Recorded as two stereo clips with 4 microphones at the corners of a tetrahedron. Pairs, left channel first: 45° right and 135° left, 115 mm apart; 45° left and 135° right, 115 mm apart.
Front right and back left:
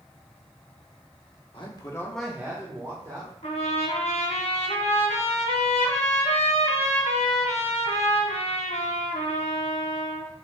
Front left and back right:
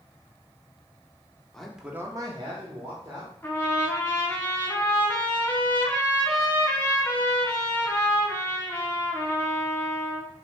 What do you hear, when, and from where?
1.5 s a man speaking: 35° right, 0.9 m; by 3.3 s straight behind, 1.6 m
3.4 s a trumpet: 25° right, 1.1 m